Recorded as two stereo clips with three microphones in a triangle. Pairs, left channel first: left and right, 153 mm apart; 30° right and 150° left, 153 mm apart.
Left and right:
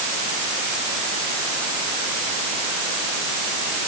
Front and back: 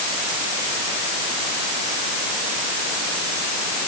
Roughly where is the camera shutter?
No camera shutter in this recording.